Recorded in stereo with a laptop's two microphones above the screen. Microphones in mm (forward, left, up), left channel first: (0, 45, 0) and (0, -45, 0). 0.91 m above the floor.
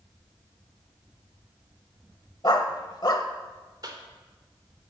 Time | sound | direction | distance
2.4 | a dog barking | 50° left (ahead or behind) | 1.0 m
3.8 | a cough | 45° right (ahead or behind) | 2.5 m